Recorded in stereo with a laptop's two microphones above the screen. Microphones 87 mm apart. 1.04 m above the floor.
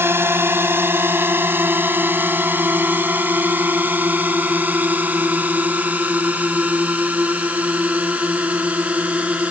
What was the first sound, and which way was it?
A drone, 25° right (ahead or behind).